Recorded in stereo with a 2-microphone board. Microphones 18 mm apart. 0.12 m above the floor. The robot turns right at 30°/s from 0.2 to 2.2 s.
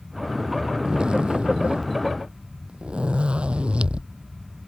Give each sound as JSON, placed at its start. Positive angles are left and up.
{"t": 0.8, "sound": "a zipper", "azimuth_deg": -125}